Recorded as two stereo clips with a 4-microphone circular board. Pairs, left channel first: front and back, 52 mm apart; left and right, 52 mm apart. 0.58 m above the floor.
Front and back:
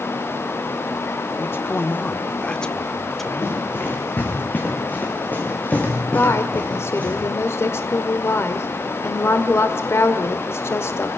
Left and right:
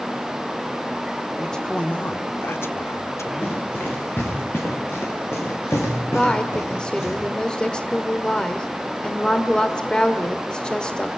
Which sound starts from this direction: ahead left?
Running footsteps, at 3.4 s.